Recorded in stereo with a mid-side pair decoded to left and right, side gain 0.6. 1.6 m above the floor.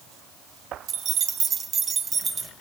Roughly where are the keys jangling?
Ahead right.